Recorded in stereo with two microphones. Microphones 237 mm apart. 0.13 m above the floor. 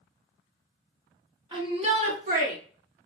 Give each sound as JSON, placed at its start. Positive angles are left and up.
{"t": 1.5, "sound": "a shout", "side_deg": -20, "distance_m": 1.8}